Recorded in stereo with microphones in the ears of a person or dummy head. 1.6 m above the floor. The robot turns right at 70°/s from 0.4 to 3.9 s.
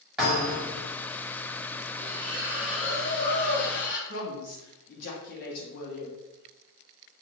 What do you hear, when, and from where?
0.2 s a thud: 175° right, 1.8 m; by 0.8 s 145° right, 1.8 m
2.0 s a splash: 50° right, 1.0 m; by 4.0 s 85° left, 1.0 m
4.1 s a woman speaking: 55° left (ahead or behind), 1.1 m